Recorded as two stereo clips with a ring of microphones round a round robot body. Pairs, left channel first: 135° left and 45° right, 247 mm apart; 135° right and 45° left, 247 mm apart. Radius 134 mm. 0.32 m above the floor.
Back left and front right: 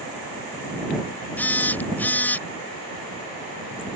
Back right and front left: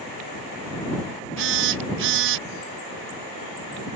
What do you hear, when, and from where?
1.4 s a phone buzzing: 55° left